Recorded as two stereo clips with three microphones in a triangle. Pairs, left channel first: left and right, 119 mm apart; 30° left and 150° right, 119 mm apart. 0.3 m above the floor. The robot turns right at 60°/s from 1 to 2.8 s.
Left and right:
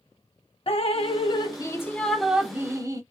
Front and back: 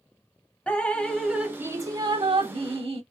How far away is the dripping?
About 0.6 m.